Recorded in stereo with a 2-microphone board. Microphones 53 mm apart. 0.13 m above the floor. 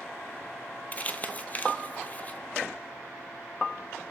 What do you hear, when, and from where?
0.9 s crumpling: 30° left (ahead or behind), 0.7 m